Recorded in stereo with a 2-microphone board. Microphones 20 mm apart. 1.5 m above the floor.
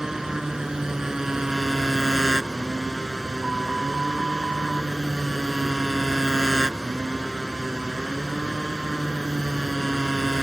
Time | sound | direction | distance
0.0 | a motorcycle | 25° right (ahead or behind) | ?